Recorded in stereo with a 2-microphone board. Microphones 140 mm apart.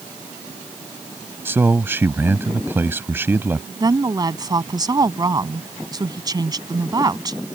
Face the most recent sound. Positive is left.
turn(degrees=-30)  # may be behind; listen again after turning